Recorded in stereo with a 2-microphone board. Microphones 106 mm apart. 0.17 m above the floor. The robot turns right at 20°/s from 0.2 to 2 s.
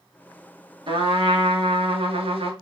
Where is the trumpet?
55° right (ahead or behind), 1.0 m; by 2.5 s 65° right (ahead or behind), 1.0 m.